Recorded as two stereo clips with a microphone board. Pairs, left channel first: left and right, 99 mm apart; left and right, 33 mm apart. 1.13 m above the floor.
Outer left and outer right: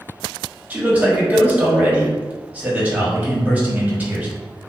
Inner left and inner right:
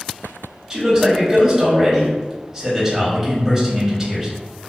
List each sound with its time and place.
0.7 s a man speaking: 15° right (ahead or behind), 1.2 m